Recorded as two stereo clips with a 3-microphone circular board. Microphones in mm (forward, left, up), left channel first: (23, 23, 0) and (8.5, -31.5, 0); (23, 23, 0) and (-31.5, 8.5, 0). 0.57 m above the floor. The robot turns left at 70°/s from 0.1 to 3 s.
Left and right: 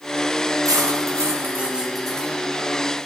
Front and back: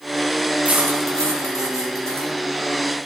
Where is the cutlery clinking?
100° right, 4 m; by 3.1 s 95° left, 4 m.